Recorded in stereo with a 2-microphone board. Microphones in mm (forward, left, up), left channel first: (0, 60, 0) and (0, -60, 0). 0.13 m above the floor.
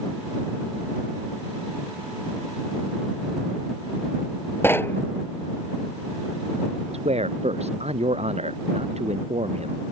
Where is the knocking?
20° left (ahead or behind).